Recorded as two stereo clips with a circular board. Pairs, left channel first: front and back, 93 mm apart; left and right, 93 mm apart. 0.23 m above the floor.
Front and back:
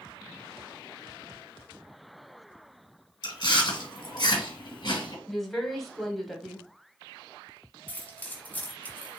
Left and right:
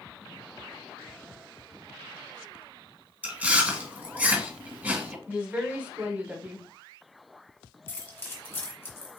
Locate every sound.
3.2 s chewing: 20° right, 1.8 m
5.3 s a woman speaking: 85° right, 1.2 m
7.9 s keys jangling: 55° left, 1.1 m